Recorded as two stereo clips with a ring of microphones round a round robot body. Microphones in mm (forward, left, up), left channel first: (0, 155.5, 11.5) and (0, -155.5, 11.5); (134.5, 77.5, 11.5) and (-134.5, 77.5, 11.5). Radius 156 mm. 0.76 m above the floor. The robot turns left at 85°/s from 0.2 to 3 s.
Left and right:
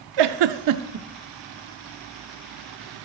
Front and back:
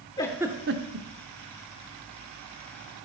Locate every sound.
0.2 s a giggle: 80° right, 0.6 m; by 1.1 s 150° right, 0.6 m